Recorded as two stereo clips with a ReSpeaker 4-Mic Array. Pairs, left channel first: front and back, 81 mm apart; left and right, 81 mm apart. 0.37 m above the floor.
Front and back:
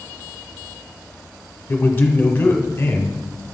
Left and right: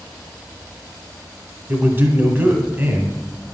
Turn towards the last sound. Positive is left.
turn(degrees=-45)